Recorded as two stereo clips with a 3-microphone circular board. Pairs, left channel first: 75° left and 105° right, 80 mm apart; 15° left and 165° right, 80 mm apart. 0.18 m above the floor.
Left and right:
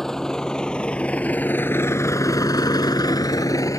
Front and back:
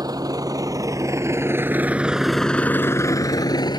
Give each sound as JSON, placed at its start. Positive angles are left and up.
{"t": 0.0, "sound": "a vehicle", "azimuth_deg": 160}